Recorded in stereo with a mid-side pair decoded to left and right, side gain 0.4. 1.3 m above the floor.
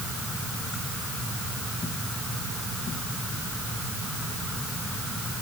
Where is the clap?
No clap in this recording.